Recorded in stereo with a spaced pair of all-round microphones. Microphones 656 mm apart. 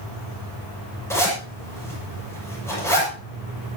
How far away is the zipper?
About 7.5 m.